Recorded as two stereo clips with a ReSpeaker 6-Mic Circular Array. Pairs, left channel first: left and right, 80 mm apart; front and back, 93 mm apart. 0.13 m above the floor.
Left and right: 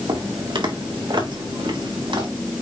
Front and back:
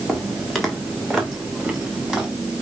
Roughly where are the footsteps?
Right.